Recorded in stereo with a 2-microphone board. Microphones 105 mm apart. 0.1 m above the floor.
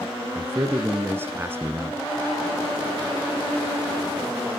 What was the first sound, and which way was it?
A man speaking, 20° right (ahead or behind).